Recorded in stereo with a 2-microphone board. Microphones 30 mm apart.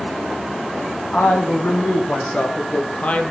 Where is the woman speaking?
55° left (ahead or behind), 5.5 m; by 3.3 s 40° left (ahead or behind), 2.5 m.